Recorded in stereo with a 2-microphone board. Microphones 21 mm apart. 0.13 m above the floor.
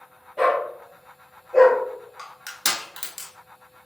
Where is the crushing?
15° right (ahead or behind), 0.9 m.